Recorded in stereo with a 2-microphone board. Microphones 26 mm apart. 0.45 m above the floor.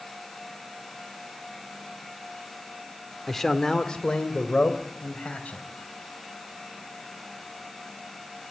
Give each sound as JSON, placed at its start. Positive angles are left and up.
{"t": 3.3, "sound": "a man speaking", "side_deg": 10, "distance_m": 1.3}